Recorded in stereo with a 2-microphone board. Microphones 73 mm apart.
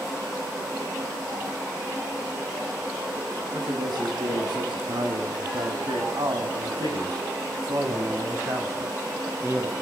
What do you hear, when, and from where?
3.5 s a man speaking: 70° right (ahead or behind), 6 m; by 9.7 s 25° right (ahead or behind), 5 m